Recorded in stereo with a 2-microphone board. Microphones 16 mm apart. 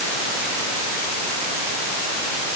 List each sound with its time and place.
Only background noise.